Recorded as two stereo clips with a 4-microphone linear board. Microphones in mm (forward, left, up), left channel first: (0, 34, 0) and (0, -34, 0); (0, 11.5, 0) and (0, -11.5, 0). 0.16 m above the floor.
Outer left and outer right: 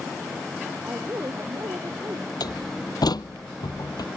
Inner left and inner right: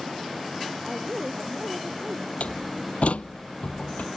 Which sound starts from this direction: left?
A door slam, at 2.4 s.